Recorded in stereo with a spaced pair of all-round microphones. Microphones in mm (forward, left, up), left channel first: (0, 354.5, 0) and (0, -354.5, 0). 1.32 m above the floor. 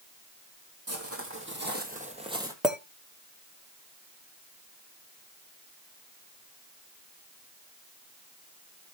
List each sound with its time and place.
0.9 s footsteps: 20° right (ahead or behind), 2.5 m; by 2.5 s 5° right (ahead or behind), 1.9 m
2.6 s a clink: centre (ahead or behind), 1.1 m